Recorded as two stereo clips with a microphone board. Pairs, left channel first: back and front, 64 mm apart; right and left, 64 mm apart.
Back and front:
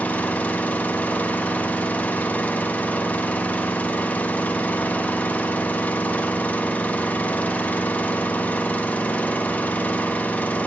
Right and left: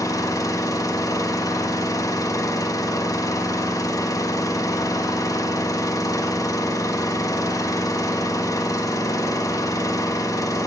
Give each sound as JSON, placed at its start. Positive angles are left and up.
{"t": 0.0, "sound": "an engine running", "azimuth_deg": -115, "distance_m": 1.1}